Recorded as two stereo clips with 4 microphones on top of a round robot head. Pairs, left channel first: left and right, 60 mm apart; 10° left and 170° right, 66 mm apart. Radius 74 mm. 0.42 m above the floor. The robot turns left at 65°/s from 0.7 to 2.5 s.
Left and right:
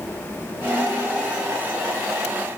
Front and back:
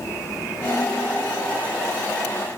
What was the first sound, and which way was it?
Only background noise.